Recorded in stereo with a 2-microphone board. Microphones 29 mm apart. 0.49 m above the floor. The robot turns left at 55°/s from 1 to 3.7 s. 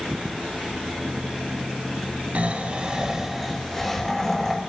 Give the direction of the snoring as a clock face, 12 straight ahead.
4 o'clock.